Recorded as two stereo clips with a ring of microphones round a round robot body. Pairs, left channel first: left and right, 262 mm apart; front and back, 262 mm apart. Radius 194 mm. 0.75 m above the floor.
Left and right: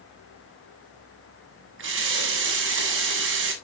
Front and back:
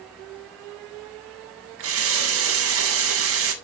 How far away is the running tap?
About 1.0 m.